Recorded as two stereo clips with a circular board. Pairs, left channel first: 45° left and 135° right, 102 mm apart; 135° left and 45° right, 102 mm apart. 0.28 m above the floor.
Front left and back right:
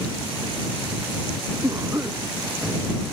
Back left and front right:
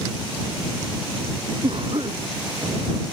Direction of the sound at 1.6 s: 80° right.